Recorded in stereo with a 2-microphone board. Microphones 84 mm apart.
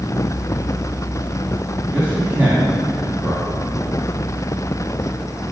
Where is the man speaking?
20° right (ahead or behind), 2 m.